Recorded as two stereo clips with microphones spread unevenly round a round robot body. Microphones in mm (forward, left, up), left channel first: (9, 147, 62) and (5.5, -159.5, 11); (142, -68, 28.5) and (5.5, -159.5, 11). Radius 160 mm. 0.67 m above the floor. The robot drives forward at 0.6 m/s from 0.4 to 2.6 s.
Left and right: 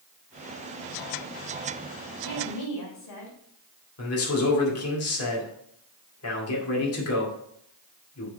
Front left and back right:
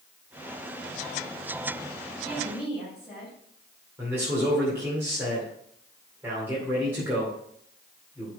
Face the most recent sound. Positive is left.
turn(degrees=135)